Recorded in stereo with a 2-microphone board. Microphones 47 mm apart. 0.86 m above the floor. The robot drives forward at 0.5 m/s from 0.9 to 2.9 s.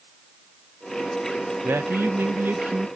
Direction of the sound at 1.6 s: 50° right (ahead or behind).